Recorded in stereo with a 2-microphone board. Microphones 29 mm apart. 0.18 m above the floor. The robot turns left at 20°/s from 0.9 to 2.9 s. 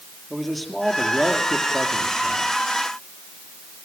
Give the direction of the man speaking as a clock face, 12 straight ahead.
12 o'clock.